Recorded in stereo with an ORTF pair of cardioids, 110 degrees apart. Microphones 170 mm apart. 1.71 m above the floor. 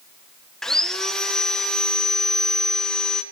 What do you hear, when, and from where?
0.6 s sawing: 5° left, 1.8 m